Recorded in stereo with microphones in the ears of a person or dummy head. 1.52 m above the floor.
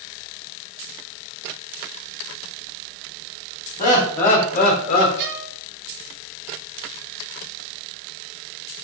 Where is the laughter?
45° left (ahead or behind), 1.4 m; by 5.1 s 50° left (ahead or behind), 0.7 m.